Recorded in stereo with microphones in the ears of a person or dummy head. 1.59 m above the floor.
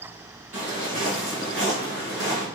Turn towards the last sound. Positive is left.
turn(degrees=20)  # may be behind; listen again after turning